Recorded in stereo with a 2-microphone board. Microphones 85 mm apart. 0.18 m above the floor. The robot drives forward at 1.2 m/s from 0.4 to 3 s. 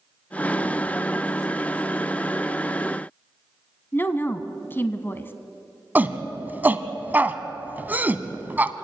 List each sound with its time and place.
3.9 s a woman speaking: 25° left (ahead or behind), 1.2 m
6.0 s a shout: 20° right (ahead or behind), 1.0 m